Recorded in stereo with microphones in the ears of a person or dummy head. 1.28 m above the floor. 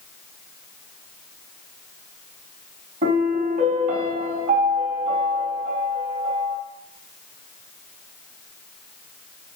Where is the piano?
40° right (ahead or behind), 2.5 m.